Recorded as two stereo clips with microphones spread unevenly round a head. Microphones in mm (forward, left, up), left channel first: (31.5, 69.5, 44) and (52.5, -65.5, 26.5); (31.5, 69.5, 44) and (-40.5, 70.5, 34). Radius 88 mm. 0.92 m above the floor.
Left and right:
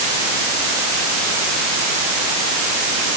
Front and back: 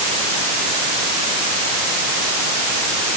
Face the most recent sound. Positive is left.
No sound to turn to.